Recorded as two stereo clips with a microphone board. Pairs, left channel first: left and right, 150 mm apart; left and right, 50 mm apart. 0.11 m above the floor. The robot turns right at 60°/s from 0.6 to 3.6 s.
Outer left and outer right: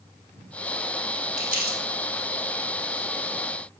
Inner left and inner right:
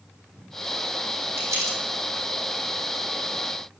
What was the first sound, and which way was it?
Crumpling, 55° right (ahead or behind).